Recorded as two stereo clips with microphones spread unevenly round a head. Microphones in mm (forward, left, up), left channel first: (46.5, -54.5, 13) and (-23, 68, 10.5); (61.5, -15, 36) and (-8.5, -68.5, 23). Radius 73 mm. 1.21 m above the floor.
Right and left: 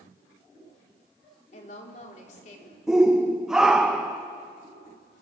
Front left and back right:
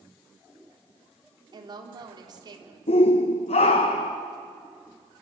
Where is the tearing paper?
No tearing paper in this recording.